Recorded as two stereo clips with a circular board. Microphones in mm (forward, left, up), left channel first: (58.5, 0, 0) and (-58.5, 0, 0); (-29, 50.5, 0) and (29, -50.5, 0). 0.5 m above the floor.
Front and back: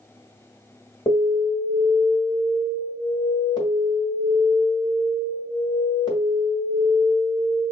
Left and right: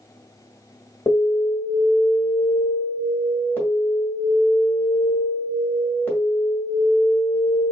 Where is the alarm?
50° left, 1.8 m.